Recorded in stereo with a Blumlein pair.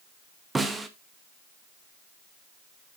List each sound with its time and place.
0.6 s a snare drum: 10° right, 1.0 m